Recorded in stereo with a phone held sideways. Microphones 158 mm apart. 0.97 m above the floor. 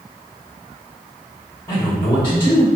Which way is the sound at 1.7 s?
35° left (ahead or behind).